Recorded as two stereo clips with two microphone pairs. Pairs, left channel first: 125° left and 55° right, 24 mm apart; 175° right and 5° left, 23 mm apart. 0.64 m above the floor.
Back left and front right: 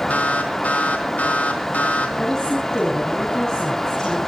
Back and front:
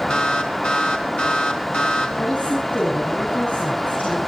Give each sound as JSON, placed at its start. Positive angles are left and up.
{"t": 0.1, "sound": "an alarm", "azimuth_deg": 150, "distance_m": 4.0}
{"t": 2.2, "sound": "a woman speaking", "azimuth_deg": -165, "distance_m": 4.5}